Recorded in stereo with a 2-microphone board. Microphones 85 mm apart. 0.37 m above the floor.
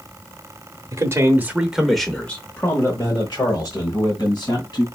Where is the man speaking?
40° right (ahead or behind), 1.0 m; by 4.8 s 55° left (ahead or behind), 2 m.